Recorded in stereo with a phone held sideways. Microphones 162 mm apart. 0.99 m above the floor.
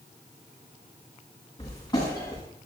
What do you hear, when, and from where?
1.6 s footsteps: 25° left (ahead or behind), 6 m